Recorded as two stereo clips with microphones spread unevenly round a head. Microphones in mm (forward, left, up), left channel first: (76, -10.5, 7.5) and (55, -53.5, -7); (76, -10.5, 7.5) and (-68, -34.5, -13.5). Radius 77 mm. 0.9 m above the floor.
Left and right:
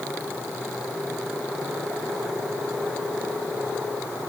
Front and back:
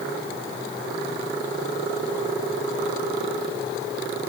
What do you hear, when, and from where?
Only background noise.